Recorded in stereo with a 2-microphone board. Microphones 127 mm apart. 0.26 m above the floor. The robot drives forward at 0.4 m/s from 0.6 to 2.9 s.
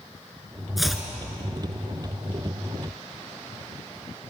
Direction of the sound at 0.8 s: Centre (ahead or behind).